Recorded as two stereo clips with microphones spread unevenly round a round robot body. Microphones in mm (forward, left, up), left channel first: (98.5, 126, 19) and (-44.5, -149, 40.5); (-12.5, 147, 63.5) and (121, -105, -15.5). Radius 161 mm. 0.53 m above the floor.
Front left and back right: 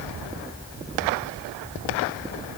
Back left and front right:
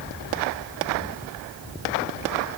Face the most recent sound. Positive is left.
No sound to turn to.